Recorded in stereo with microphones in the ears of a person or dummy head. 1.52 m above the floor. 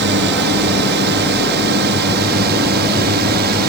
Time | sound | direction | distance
0.0 | a drone | 60° right (ahead or behind) | ?